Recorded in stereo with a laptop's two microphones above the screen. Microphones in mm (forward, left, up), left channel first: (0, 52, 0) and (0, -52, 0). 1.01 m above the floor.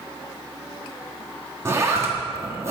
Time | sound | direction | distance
1.6 | a zipper | 25° right (ahead or behind) | 1.6 m